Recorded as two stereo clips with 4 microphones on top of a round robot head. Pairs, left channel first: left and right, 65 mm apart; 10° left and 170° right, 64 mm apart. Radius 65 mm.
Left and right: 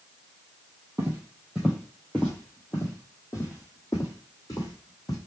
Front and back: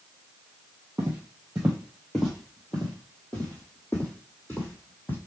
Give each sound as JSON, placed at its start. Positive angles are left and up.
{"t": 1.0, "sound": "footsteps", "azimuth_deg": -120, "distance_m": 1.4}